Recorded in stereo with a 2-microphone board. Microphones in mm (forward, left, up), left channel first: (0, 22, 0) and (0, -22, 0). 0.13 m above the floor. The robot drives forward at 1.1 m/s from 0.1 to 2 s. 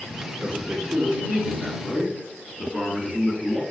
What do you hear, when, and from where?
0.4 s a man speaking: 30° right (ahead or behind), 1.8 m; by 3.6 s 20° right (ahead or behind), 2.5 m